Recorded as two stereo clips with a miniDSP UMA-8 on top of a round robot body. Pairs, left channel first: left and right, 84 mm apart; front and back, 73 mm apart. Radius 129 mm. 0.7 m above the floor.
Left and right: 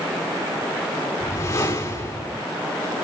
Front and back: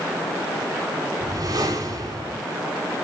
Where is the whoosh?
145° left, 2.5 m.